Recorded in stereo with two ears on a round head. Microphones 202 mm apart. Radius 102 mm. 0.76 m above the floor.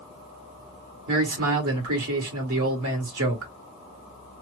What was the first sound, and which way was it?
A man speaking, 65° right (ahead or behind).